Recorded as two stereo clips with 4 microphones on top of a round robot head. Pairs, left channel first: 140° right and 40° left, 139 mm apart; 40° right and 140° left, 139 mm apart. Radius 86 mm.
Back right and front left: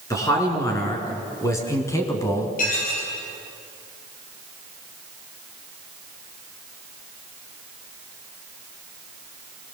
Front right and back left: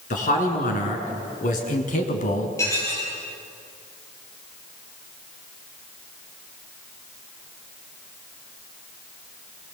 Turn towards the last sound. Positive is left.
turn(degrees=-110)